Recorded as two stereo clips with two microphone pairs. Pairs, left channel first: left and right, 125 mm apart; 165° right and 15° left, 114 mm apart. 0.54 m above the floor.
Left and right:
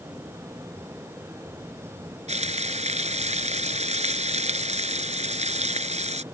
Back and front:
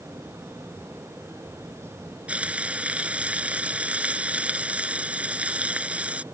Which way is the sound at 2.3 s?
65° right.